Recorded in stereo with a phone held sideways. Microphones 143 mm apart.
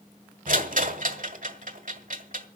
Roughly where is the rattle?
Right.